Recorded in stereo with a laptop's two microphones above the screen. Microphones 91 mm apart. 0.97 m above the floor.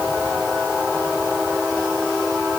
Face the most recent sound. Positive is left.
No sound to turn to.